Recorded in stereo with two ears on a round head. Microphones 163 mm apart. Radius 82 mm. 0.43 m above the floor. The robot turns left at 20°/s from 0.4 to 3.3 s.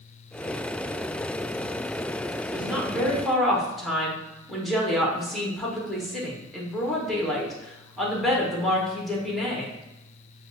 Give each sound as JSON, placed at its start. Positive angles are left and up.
{"t": 2.5, "sound": "a woman speaking", "side_deg": -10, "distance_m": 0.8}